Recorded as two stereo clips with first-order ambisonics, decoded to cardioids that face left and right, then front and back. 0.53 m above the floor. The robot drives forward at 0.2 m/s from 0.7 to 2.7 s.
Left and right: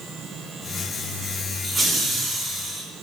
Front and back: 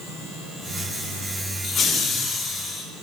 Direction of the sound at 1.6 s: 25° right.